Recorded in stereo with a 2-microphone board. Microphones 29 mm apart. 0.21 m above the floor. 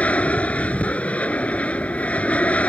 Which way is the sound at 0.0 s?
50° left (ahead or behind).